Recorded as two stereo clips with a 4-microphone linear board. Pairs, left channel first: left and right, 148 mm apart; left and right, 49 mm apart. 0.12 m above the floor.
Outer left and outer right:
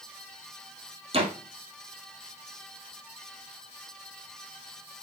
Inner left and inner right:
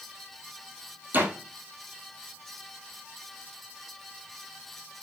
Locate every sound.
1.1 s a door slam: 40° right (ahead or behind), 2.5 m